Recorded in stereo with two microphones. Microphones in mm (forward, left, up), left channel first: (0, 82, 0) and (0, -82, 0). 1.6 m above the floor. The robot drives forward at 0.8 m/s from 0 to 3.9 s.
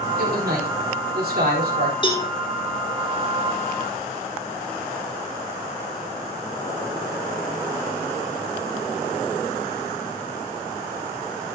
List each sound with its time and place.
0.2 s a man speaking: 70° right (ahead or behind), 5 m; by 1.9 s 90° right, 5 m
2.0 s a cowbell: 30° left (ahead or behind), 2.5 m